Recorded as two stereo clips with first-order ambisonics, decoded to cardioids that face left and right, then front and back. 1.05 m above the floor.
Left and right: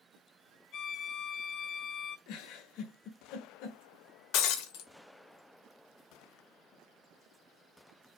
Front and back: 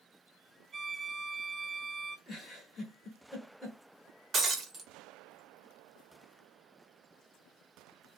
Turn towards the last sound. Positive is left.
turn(degrees=110)